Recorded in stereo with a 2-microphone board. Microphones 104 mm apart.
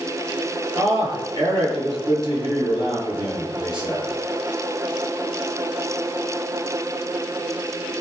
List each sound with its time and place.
0.8 s a man speaking: 50° right (ahead or behind), 7.5 m